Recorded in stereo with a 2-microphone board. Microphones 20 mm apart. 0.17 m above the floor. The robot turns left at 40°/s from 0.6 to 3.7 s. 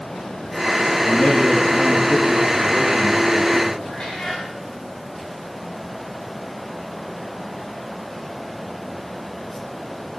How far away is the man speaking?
About 4.5 m.